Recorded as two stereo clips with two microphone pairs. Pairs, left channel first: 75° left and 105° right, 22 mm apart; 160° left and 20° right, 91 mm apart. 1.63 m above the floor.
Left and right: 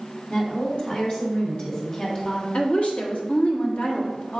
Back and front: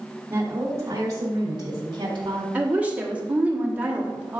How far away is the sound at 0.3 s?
About 2.5 m.